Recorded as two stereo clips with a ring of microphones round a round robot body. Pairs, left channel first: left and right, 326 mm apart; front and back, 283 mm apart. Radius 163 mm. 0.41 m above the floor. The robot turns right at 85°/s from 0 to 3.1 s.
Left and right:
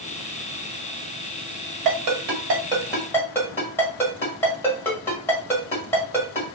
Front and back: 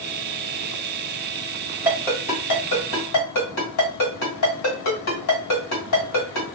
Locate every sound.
1.9 s a ringtone: 100° right, 1.5 m; by 6.4 s 10° left, 1.5 m